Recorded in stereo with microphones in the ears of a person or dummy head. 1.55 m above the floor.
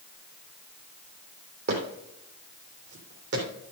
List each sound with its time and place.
1.7 s footsteps: 55° right (ahead or behind), 2.5 m; by 3.5 s 65° right (ahead or behind), 3.5 m